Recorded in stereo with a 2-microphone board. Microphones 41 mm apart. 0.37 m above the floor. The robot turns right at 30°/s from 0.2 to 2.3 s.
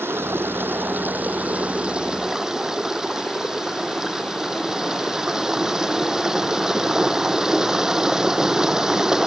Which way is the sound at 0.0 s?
75° right.